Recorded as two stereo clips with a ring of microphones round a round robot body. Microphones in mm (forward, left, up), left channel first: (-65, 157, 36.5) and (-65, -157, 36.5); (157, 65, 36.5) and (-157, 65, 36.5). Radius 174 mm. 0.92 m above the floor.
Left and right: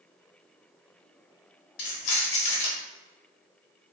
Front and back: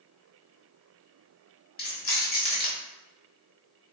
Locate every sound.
1.8 s keys jangling: 65° left, 0.8 m